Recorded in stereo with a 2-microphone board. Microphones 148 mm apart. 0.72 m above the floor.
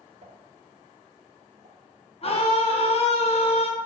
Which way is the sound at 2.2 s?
40° left (ahead or behind).